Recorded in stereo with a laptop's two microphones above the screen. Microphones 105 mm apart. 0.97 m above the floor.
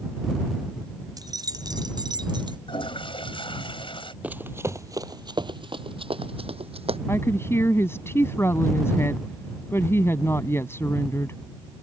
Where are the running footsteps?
15° right (ahead or behind); by 7.0 s 70° right (ahead or behind).